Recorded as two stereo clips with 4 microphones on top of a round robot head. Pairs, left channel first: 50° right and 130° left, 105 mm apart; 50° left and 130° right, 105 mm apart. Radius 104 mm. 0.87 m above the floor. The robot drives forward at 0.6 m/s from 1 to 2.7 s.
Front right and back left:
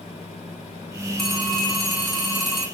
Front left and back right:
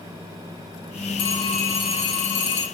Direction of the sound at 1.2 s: 35° left.